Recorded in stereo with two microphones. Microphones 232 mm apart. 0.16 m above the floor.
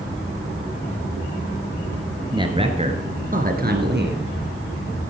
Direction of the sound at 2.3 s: 20° right (ahead or behind).